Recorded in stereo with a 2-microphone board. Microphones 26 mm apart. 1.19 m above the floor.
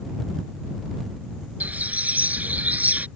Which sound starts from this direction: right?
A bird, at 1.6 s.